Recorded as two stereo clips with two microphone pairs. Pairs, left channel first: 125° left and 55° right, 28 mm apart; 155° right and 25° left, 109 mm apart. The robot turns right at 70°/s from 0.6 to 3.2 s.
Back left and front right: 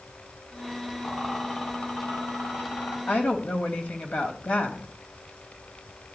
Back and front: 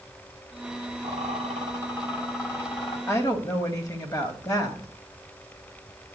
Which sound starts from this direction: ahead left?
A rattle, at 1.0 s.